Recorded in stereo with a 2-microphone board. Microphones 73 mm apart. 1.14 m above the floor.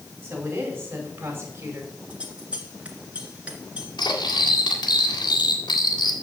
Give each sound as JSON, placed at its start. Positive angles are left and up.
{"t": 0.2, "sound": "a woman speaking", "side_deg": -25, "distance_m": 5.5}
{"t": 2.1, "sound": "scissors", "side_deg": -20, "distance_m": 2.5}
{"t": 4.0, "sound": "cutlery clinking", "side_deg": 75, "distance_m": 1.8}